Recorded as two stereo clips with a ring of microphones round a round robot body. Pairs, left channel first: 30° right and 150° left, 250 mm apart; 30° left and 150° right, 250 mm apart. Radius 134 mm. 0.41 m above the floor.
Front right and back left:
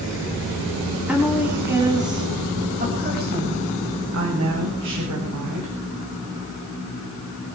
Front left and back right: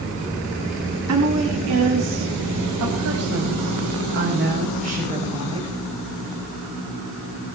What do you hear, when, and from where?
1.1 s a woman speaking: 125° right, 4 m; by 5.8 s 140° left, 3.5 m